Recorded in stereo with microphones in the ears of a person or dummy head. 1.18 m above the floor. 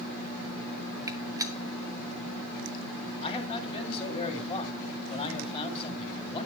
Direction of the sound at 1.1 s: 20° right (ahead or behind).